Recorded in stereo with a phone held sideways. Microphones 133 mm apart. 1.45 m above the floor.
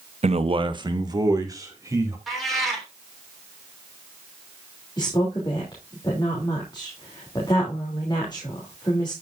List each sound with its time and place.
0.2 s a man speaking: 55° right (ahead or behind), 0.8 m; by 2.2 s 25° right (ahead or behind), 3.5 m
2.3 s a cat meowing: centre (ahead or behind), 3 m
5.0 s a woman speaking: 35° left (ahead or behind), 3 m